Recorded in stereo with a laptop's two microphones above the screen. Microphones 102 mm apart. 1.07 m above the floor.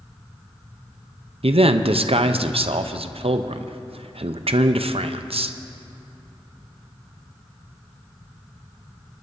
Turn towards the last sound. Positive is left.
turn(degrees=-75)  # may be behind; listen again after turning